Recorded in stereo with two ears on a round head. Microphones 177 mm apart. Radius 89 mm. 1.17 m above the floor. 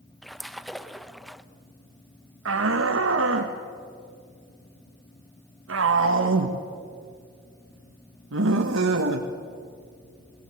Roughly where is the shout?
Right.